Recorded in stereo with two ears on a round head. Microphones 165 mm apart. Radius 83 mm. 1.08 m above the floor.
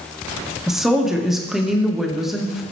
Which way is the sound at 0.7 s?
Centre (ahead or behind).